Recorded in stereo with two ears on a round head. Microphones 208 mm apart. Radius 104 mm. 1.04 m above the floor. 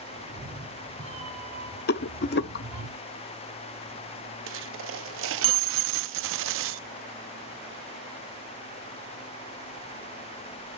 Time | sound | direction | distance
0.1 | a cat meowing | 20° right (ahead or behind) | 6 m
1.9 | a rattle | 45° left (ahead or behind) | 0.6 m
4.5 | a dropped coin | 60° right (ahead or behind) | 0.6 m